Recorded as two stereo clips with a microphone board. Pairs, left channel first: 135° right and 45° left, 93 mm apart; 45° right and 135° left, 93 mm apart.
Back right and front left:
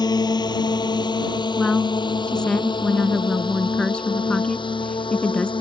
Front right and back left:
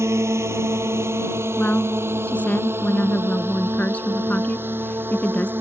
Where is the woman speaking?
80° right.